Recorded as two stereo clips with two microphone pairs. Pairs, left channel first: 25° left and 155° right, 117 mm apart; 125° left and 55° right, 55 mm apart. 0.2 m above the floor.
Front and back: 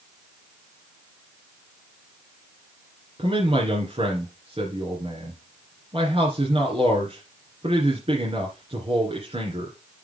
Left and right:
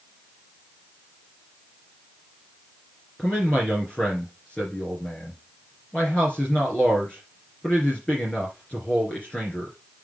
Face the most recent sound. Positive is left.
turn(degrees=-170)